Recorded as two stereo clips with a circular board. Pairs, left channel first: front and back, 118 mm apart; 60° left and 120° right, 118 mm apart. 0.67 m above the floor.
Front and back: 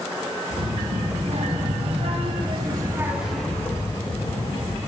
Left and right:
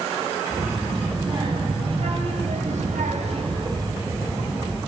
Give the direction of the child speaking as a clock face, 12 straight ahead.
6 o'clock.